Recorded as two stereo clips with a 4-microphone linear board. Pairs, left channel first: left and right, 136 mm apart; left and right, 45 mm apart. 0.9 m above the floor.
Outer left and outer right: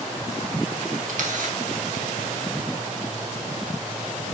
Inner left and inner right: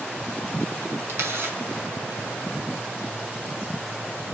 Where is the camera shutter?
75° right (ahead or behind), 3 m.